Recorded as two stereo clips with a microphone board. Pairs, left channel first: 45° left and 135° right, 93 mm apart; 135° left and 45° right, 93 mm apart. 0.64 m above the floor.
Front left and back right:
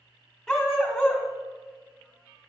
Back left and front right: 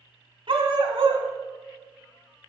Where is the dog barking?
40° right, 1.1 m.